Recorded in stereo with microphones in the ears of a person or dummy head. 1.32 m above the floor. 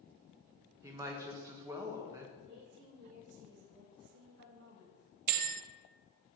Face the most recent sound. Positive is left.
turn(degrees=-45)  # may be behind; listen again after turning